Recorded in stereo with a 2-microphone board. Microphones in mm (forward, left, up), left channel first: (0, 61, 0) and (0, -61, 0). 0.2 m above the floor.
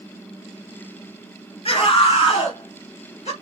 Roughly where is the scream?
Left.